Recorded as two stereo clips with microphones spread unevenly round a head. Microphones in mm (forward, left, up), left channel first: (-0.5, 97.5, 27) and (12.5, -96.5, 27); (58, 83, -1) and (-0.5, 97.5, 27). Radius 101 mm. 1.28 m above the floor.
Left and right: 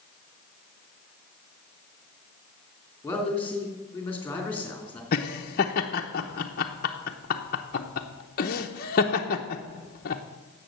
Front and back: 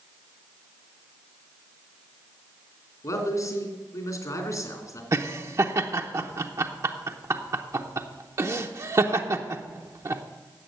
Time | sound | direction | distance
3.0 | a man speaking | 15° left | 3 m
5.1 | laughter | 140° left | 0.8 m